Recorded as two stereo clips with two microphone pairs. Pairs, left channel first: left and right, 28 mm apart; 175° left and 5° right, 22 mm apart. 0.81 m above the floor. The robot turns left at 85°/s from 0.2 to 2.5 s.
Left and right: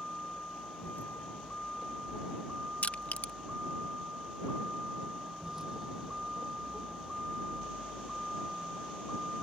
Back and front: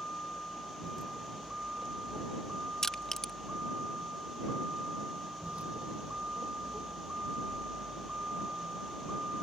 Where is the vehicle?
155° left; by 9.4 s 10° left.